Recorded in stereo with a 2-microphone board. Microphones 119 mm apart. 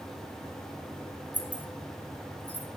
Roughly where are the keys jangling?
Centre.